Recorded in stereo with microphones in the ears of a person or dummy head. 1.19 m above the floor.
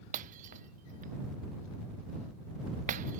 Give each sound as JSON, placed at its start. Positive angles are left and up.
{"t": 0.1, "sound": "breaking glass", "side_deg": -40}